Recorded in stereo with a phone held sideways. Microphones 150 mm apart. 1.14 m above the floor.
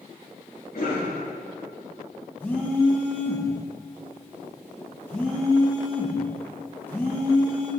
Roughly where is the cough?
Left.